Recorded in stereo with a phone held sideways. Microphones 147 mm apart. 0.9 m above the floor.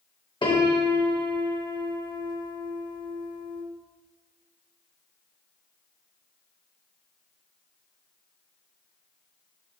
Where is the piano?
35° left (ahead or behind), 0.7 m.